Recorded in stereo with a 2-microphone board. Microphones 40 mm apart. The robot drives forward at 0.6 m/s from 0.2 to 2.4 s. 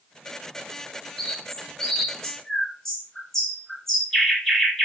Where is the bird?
15° left (ahead or behind), 0.9 m; by 4.9 s 5° left (ahead or behind), 1.6 m.